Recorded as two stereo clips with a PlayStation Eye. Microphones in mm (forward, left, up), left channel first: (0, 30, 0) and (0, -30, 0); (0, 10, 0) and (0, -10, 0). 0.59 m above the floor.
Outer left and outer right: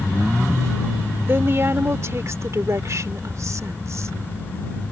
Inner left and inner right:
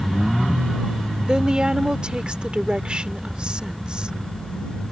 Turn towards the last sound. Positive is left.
turn(degrees=-60)  # may be behind; listen again after turning